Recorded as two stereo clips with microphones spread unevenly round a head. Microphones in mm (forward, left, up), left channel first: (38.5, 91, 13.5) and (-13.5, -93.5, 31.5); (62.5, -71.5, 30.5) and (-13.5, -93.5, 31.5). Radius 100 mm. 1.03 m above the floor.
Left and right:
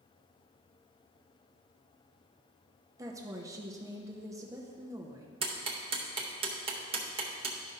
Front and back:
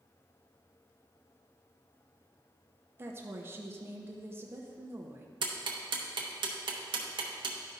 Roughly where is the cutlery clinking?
I don't hear cutlery clinking.